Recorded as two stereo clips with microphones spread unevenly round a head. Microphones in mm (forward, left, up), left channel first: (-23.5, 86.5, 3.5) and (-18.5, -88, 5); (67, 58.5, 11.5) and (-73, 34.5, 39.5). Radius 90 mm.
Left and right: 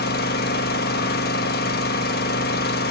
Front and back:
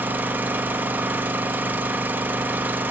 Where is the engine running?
120° left, 1.1 m.